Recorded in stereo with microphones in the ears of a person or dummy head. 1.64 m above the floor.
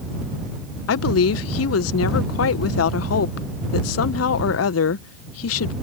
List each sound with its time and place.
0.9 s a woman speaking: 80° left